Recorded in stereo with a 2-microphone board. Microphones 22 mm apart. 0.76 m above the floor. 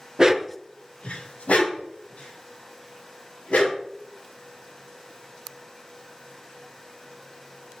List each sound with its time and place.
0.2 s a dog barking: 35° right (ahead or behind), 0.7 m; by 3.8 s 85° left, 4.5 m